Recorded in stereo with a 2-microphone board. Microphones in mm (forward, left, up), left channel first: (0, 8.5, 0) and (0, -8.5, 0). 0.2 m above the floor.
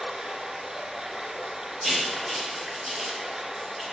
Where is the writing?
20° right (ahead or behind), 4.5 m.